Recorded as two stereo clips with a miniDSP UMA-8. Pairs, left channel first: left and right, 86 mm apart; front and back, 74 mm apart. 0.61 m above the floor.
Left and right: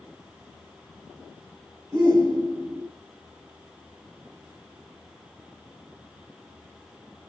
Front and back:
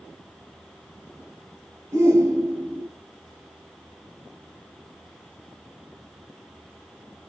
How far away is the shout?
About 2 m.